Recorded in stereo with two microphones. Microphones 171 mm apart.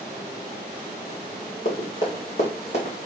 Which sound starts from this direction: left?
Running footsteps, at 1.6 s.